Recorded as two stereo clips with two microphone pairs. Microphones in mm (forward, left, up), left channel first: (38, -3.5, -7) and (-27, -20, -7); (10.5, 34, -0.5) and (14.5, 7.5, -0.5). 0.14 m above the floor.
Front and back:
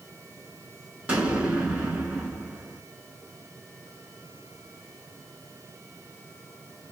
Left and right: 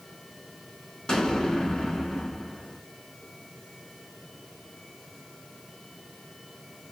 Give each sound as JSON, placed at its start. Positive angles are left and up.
{"t": 1.1, "sound": "an explosion", "azimuth_deg": 140, "distance_m": 0.9}